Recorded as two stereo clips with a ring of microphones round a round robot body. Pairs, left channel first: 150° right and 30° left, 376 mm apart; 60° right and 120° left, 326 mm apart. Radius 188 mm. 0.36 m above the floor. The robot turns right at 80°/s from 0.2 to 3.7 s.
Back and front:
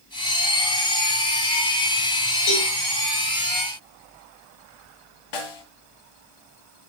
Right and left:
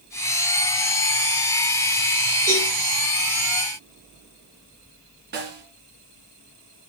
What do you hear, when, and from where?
2.5 s a cowbell: 145° right, 4 m; by 2.7 s 125° right, 4 m
5.3 s a snare drum: 175° right, 1.6 m